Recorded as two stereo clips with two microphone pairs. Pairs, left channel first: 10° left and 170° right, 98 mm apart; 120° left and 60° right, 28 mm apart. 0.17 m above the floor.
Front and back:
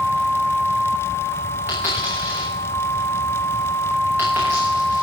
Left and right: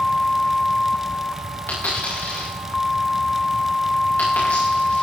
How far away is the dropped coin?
About 9 m.